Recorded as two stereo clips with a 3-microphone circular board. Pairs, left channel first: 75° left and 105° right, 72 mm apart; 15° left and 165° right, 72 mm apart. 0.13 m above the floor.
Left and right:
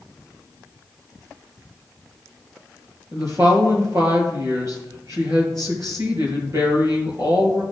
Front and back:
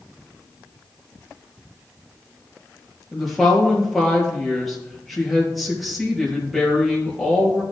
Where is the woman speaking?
75° right, 3.5 m.